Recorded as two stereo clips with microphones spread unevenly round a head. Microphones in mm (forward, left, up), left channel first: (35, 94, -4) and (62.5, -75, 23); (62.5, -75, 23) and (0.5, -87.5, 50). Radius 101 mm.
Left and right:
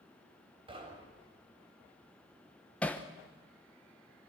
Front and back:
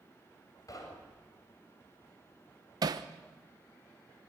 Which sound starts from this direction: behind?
Hammering, at 2.8 s.